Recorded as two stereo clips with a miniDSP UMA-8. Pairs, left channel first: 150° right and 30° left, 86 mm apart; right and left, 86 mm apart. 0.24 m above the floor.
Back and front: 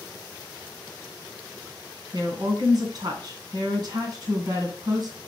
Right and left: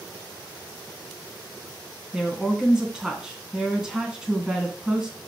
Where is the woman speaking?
10° left, 3 m.